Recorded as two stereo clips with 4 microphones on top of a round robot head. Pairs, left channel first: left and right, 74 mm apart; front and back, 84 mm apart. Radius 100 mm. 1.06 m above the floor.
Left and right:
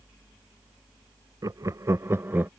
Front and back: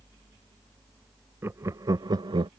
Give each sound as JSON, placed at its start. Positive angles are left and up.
{"t": 1.4, "sound": "laughter", "azimuth_deg": -120}